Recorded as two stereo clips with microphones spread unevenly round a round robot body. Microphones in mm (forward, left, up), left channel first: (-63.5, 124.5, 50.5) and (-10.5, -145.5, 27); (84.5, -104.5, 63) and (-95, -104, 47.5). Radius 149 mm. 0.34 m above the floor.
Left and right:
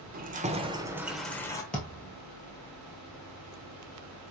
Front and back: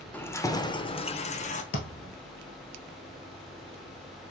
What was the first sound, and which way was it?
Keys jangling, 80° right.